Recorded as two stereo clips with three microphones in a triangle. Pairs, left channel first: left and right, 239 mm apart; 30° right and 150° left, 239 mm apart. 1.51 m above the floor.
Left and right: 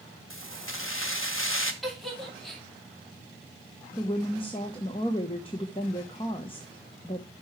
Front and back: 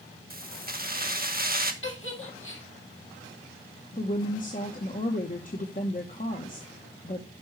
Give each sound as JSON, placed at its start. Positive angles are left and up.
{"t": 0.3, "sound": "keys jangling", "azimuth_deg": 105, "distance_m": 1.0}
{"t": 1.8, "sound": "a giggle", "azimuth_deg": 0, "distance_m": 2.0}
{"t": 3.9, "sound": "a woman speaking", "azimuth_deg": 20, "distance_m": 1.0}